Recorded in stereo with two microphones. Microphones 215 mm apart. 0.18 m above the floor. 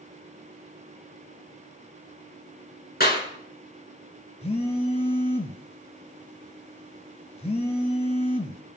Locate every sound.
3.0 s a clap: 45° left (ahead or behind), 2.5 m
4.4 s a phone buzzing: 30° left (ahead or behind), 1.0 m